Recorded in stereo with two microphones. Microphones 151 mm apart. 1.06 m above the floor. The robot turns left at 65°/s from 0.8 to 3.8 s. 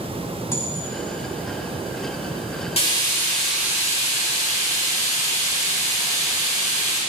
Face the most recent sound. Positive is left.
turn(degrees=-20)